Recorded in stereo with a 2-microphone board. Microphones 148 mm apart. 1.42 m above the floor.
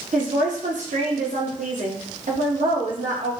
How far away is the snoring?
No snoring in this recording.